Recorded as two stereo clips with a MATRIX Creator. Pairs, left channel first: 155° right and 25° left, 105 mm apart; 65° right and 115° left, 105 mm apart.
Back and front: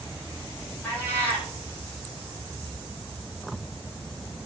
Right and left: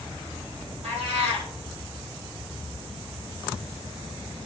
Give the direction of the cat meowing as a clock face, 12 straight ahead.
8 o'clock.